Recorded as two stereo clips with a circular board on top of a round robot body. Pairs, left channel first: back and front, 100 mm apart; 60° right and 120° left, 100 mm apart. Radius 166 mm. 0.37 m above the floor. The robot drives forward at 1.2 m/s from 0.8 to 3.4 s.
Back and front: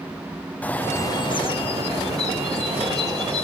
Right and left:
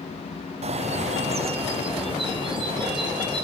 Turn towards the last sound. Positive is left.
turn(degrees=170)